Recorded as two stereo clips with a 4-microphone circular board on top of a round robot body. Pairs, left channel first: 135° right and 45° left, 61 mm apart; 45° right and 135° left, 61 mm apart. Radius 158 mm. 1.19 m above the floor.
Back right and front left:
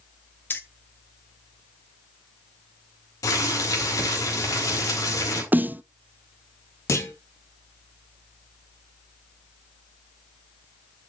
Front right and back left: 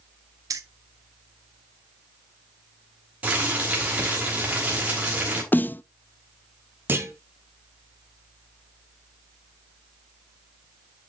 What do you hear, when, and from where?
0.5 s keys jangling: 170° left, 0.6 m
3.2 s boiling: 160° right, 4 m
5.5 s a snare drum: straight ahead, 0.6 m
6.9 s a clunk: 175° right, 1.7 m